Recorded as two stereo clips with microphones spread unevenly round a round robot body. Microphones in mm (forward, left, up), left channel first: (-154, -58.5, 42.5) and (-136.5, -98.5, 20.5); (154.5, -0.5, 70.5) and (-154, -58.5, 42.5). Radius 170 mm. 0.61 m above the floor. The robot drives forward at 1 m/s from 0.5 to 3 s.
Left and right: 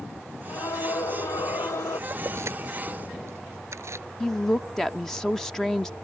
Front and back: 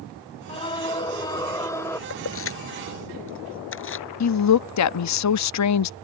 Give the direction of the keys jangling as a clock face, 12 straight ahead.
1 o'clock.